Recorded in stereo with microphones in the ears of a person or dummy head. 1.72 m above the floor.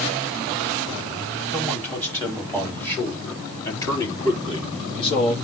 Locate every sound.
1.5 s a man speaking: 5° left (ahead or behind), 5 m; by 5.3 s 35° left (ahead or behind), 3 m